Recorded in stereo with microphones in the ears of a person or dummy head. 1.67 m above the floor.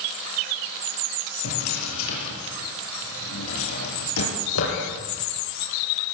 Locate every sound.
1.4 s a drawer: 70° left (ahead or behind), 8.5 m